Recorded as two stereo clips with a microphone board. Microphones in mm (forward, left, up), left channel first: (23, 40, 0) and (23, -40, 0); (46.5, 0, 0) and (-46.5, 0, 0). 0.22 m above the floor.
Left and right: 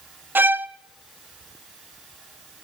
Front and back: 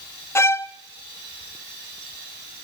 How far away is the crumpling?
No crumpling in this recording.